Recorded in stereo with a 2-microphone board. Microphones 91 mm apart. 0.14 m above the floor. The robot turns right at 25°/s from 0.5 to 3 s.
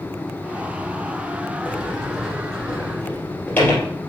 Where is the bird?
I don't hear a bird.